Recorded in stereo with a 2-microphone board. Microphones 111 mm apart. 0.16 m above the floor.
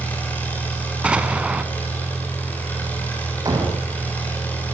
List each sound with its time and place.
0.0 s an engine running: 15° left (ahead or behind), 9.5 m
1.0 s an explosion: 10° right (ahead or behind), 1.6 m
3.5 s a door slam: 35° right (ahead or behind), 6 m